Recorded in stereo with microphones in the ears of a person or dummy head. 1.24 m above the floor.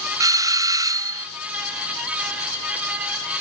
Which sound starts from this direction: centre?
A doorbell, at 0.2 s.